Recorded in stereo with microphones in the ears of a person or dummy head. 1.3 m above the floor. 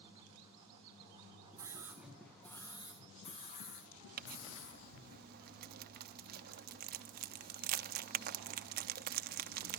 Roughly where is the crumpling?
Right.